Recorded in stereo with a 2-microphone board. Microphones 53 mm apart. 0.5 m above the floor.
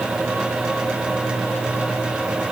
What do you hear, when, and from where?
Only background noise.